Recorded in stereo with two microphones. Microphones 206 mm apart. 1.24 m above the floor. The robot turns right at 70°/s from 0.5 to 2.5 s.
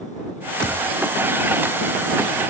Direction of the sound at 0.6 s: 75° left (ahead or behind).